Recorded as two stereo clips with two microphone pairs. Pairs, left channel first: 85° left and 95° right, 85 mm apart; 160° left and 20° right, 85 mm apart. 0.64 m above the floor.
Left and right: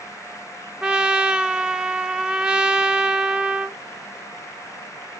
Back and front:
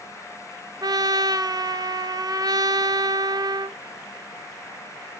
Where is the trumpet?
15° right, 0.6 m.